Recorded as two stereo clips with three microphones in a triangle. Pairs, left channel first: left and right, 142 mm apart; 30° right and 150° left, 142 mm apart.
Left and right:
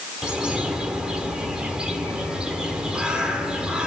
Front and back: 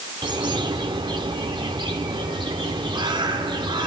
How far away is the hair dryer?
I don't hear a hair dryer.